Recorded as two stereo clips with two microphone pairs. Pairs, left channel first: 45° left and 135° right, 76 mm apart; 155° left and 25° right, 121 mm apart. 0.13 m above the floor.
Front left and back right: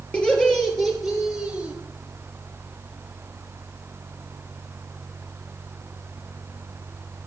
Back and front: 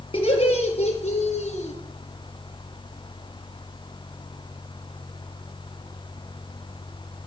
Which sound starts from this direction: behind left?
Laughter, at 0.1 s.